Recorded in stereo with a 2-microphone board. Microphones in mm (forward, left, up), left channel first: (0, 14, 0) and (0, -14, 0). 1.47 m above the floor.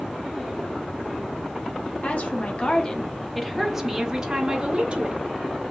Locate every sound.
2.0 s a woman speaking: 55° left (ahead or behind), 1.1 m; by 5.2 s 45° right (ahead or behind), 1.5 m